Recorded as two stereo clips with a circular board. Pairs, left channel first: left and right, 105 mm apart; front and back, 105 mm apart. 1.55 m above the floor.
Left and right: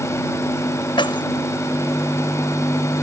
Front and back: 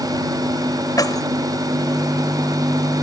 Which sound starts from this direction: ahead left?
Keys jangling, at 1.0 s.